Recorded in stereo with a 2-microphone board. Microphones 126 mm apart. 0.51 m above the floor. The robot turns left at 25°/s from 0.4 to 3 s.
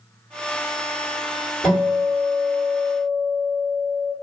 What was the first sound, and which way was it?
A guitar, 165° left.